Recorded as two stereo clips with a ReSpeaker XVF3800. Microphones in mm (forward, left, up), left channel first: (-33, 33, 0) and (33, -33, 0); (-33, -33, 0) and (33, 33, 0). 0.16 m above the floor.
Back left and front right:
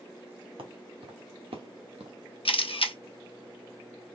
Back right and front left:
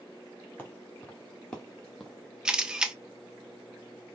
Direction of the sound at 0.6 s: 60° right.